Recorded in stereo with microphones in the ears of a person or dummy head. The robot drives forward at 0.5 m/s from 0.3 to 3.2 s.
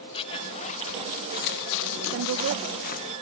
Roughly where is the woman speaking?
Right.